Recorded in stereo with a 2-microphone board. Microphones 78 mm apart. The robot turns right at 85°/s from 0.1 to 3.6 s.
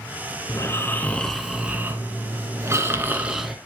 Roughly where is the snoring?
Left.